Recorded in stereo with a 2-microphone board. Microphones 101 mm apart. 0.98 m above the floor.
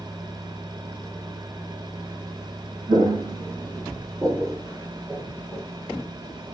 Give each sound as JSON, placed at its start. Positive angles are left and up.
{"t": 2.9, "sound": "footsteps", "side_deg": -55, "distance_m": 1.7}